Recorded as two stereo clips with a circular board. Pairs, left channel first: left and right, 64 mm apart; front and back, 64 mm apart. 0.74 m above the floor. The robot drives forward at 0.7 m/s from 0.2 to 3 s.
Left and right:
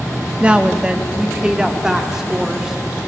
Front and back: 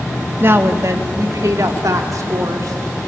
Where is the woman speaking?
150° right, 1.0 m; by 2.8 s 170° right, 2.5 m.